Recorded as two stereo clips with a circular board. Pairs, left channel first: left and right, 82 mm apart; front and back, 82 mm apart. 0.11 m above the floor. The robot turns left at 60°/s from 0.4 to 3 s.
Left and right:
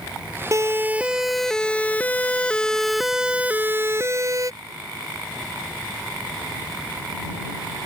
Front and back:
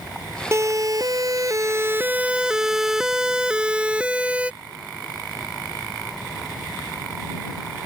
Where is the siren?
130° right; by 4.5 s 110° right.